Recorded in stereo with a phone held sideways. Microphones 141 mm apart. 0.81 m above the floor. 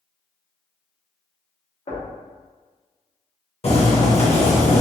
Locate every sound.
1.9 s knocking: 50° left (ahead or behind), 0.8 m
3.6 s boiling: 45° left (ahead or behind), 0.8 m